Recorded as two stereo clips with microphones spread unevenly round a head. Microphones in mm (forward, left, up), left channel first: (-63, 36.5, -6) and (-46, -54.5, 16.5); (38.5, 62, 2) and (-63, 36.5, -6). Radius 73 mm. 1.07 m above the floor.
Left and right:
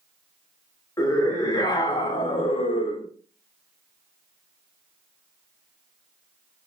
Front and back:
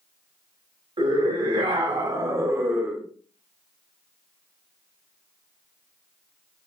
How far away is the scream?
About 1.6 m.